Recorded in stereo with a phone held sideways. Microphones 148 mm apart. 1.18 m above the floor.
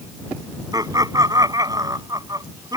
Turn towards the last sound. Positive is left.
turn(degrees=-25)  # may be behind; listen again after turning